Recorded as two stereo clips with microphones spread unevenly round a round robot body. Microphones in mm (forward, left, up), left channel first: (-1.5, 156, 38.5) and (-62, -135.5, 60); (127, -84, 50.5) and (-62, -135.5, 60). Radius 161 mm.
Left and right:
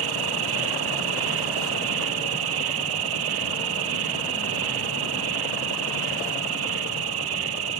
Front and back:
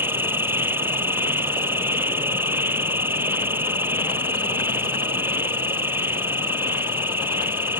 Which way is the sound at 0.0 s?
85° right.